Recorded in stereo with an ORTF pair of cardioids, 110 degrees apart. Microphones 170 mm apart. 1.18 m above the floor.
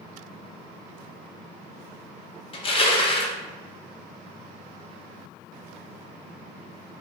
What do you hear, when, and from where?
2.5 s crushing: 35° left, 0.9 m